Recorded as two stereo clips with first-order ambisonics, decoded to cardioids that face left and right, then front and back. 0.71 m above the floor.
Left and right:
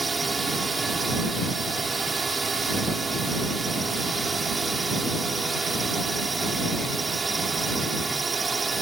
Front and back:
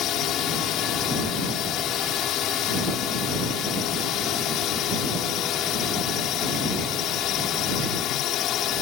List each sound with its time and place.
0.0 s a drone: 20° right